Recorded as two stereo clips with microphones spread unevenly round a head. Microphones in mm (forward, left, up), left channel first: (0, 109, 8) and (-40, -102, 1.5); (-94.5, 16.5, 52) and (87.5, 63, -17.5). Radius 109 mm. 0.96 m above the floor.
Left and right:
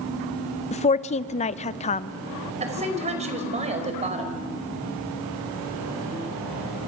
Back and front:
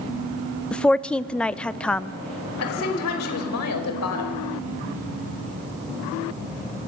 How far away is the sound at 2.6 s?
About 5 m.